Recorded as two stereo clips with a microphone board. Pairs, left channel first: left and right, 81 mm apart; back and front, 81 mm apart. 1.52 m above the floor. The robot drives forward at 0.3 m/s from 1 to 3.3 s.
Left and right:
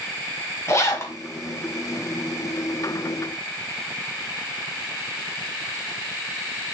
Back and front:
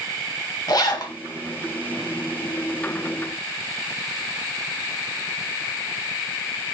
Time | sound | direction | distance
0.7 | a zipper | 145° left | 1.4 m